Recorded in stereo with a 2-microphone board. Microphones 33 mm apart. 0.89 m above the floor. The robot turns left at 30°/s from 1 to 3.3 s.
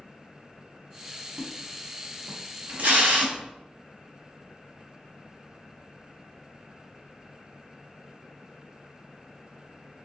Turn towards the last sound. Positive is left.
turn(degrees=-50)  # may be behind; listen again after turning